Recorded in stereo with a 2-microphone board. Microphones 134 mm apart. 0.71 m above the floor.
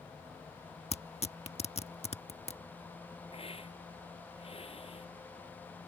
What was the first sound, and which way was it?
Tearing paper, 50° left (ahead or behind).